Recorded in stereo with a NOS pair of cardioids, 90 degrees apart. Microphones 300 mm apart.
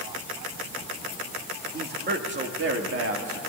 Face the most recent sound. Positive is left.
turn(degrees=-50)